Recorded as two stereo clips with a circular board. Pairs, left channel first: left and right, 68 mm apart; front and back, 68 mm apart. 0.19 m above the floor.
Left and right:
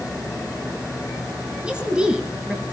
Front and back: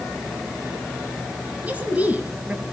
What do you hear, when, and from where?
1.6 s a woman speaking: 145° right, 1.6 m